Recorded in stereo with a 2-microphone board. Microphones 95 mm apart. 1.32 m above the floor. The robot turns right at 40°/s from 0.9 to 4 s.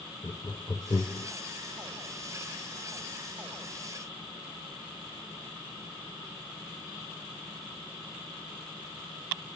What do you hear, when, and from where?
0.2 s laughter: 30° left (ahead or behind), 0.6 m; by 1.3 s 45° left (ahead or behind), 0.6 m